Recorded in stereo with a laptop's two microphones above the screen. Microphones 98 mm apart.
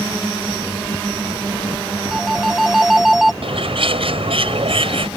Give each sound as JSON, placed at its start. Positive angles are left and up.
{"t": 2.1, "sound": "a phone ringing", "side_deg": -5}
{"t": 3.4, "sound": "a bird", "side_deg": -70}